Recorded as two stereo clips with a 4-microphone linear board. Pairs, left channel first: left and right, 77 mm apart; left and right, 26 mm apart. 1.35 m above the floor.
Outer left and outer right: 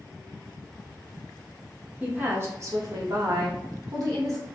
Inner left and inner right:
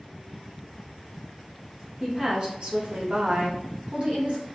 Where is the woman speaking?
20° right (ahead or behind), 0.9 m; by 4.5 s 50° right (ahead or behind), 1.2 m.